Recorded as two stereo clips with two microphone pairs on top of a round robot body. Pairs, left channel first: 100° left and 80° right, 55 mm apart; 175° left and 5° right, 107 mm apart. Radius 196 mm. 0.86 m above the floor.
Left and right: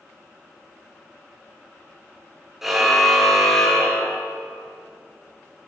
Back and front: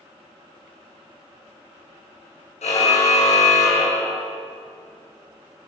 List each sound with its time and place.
2.6 s a car horn: 165° right, 8 m; by 4.3 s 175° left, 7.5 m